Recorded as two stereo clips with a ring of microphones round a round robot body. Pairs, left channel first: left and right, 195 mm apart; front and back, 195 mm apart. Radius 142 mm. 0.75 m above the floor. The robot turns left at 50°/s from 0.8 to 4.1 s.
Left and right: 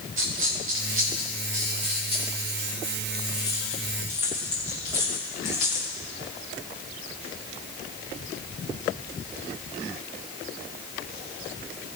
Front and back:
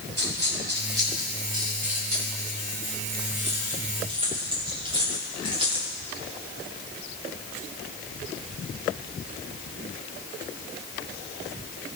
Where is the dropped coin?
80° right, 4.5 m; by 5.9 s 115° left, 4.5 m.